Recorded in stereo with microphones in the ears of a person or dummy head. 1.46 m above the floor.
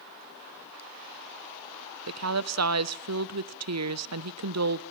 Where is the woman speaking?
80° right, 1.2 m.